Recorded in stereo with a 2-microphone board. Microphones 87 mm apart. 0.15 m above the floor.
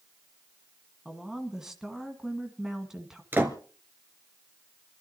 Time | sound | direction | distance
1.1 | a woman speaking | 5° right (ahead or behind) | 1.7 m
3.3 | a door slam | 25° right (ahead or behind) | 1.6 m